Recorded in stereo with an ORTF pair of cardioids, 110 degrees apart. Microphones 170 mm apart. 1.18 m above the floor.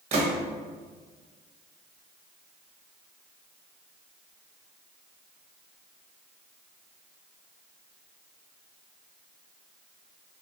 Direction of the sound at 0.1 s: 40° right.